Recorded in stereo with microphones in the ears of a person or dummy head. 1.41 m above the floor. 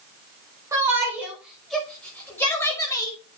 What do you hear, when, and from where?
0.7 s a shout: 15° right (ahead or behind), 6 m; by 3.2 s 25° left (ahead or behind), 6 m